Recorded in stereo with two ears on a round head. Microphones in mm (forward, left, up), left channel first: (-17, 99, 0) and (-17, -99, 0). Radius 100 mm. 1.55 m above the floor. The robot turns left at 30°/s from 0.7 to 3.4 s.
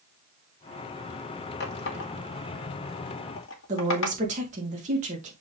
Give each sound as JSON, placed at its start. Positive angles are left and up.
{"t": 1.6, "sound": "a running tap", "side_deg": 50, "distance_m": 1.6}
{"t": 3.7, "sound": "a woman speaking", "side_deg": -30, "distance_m": 2.0}